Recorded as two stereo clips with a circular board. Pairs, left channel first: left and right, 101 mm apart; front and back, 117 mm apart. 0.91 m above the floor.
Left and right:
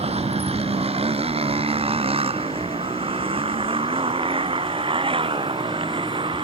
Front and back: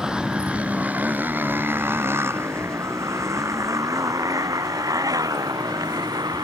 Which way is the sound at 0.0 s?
95° right.